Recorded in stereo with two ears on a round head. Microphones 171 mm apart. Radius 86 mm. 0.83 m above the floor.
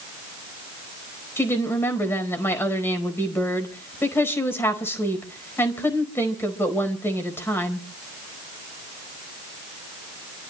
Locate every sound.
1.4 s a woman speaking: 15° left (ahead or behind), 4 m